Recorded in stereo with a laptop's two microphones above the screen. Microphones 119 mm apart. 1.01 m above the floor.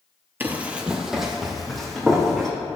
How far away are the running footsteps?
About 1.2 m.